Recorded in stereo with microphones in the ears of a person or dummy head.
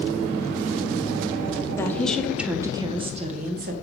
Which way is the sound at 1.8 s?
10° left (ahead or behind).